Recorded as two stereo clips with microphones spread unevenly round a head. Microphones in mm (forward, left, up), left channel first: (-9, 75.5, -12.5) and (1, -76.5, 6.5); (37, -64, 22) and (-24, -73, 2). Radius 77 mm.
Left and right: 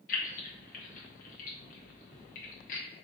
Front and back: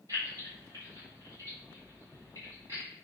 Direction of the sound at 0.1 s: 120° left.